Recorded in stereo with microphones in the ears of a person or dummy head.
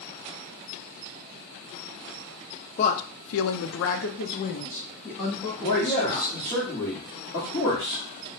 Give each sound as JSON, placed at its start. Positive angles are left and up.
{"t": 2.8, "sound": "a woman speaking", "side_deg": 35, "distance_m": 0.6}
{"t": 5.6, "sound": "a man speaking", "side_deg": 35, "distance_m": 1.2}